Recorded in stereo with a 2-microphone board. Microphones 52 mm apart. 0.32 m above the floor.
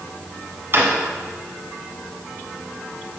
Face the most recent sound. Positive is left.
turn(degrees=-45)  # may be behind; listen again after turning